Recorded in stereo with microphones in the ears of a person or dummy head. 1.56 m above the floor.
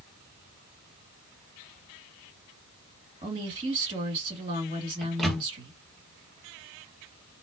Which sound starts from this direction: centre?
A microwave, at 5.0 s.